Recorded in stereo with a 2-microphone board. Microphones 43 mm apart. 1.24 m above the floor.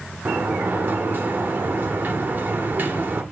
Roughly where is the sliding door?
Right.